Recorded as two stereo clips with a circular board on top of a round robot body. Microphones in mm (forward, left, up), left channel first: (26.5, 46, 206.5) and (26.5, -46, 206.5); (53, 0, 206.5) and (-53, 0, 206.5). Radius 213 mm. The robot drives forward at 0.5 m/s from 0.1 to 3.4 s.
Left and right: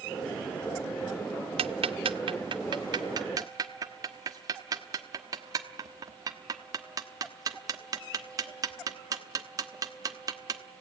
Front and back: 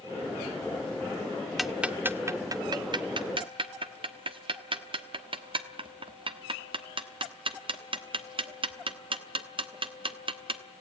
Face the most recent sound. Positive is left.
turn(degrees=-140)